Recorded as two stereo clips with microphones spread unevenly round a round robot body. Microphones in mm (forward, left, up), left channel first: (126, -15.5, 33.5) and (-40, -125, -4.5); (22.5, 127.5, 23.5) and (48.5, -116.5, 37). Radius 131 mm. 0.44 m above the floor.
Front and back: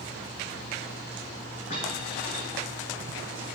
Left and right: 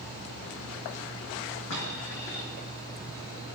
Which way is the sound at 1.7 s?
95° left.